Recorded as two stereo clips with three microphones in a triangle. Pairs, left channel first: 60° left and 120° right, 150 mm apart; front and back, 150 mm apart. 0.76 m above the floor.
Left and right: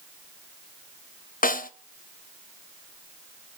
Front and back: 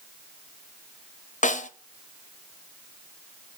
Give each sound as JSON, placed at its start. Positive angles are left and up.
{"t": 1.4, "sound": "a snare drum", "azimuth_deg": 35, "distance_m": 0.6}